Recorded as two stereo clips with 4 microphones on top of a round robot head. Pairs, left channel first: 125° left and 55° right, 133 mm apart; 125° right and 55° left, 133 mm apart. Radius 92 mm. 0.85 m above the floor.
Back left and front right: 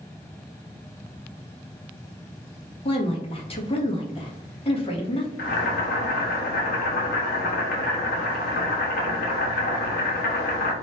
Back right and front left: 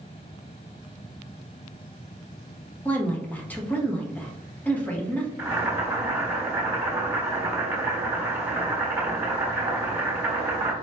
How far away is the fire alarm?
I don't hear a fire alarm.